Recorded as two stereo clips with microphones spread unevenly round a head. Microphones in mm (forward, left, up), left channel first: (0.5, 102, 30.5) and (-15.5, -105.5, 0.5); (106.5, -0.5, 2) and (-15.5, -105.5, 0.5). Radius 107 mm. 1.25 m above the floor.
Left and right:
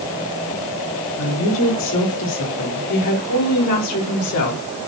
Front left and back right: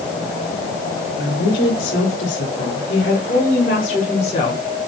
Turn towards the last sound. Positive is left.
turn(degrees=110)